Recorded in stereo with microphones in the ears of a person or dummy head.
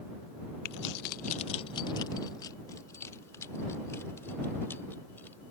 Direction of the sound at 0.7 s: 55° left (ahead or behind).